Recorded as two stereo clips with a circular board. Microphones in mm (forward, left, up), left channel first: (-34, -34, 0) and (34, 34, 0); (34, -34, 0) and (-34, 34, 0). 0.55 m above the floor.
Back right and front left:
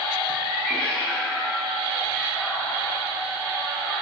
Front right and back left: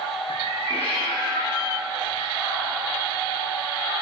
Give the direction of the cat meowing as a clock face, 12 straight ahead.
1 o'clock.